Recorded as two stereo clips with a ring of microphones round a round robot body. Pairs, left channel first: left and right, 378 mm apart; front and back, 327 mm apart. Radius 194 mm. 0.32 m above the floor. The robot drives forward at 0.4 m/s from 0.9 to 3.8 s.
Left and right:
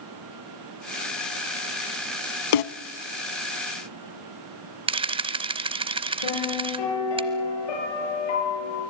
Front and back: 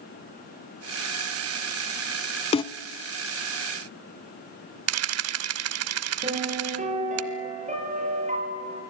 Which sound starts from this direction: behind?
A camera shutter, at 4.9 s.